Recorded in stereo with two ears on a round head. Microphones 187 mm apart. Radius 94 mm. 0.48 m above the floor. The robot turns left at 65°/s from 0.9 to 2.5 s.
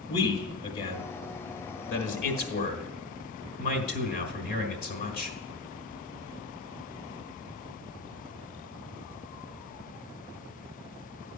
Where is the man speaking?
25° left (ahead or behind), 1.6 m; by 5.4 s 45° left (ahead or behind), 1.6 m.